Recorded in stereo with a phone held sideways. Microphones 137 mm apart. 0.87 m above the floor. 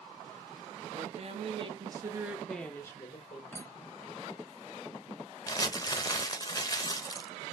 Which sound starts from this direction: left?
Crumpling, at 5.5 s.